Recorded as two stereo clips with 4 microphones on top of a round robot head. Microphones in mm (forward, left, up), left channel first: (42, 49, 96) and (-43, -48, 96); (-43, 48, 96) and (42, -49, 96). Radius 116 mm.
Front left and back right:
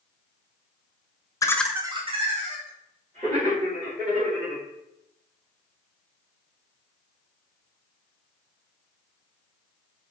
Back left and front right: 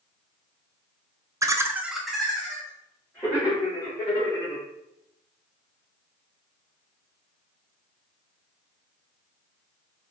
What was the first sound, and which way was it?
Laughter, straight ahead.